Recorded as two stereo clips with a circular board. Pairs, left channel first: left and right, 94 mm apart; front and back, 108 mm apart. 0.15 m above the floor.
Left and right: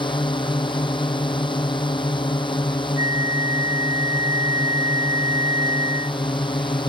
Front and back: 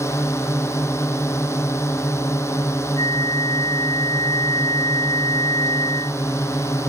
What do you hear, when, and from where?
0.0 s a drone: 65° left
3.0 s a flute: 45° right